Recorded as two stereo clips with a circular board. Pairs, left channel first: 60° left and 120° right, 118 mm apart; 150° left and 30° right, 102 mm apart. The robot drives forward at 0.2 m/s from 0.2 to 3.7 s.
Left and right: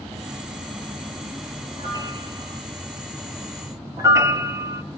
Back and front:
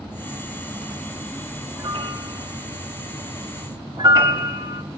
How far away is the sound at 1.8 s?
About 2.0 m.